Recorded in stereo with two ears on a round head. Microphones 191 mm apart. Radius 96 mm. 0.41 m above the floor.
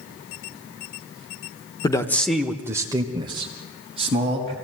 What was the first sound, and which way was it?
A man speaking, 20° left (ahead or behind).